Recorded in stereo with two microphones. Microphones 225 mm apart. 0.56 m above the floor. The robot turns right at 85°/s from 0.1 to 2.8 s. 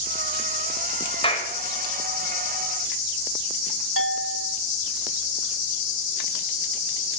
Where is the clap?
25° left (ahead or behind), 1.9 m; by 1.5 s 45° left (ahead or behind), 1.9 m.